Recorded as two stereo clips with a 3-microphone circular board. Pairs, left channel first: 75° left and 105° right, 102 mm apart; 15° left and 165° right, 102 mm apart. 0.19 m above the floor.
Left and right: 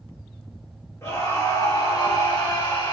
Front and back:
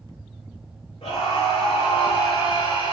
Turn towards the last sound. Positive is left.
turn(degrees=35)